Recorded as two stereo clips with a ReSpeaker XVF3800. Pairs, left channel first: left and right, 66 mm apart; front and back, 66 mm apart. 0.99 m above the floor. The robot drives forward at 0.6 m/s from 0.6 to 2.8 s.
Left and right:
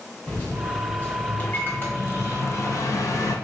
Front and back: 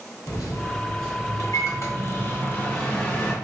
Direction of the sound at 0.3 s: 20° left.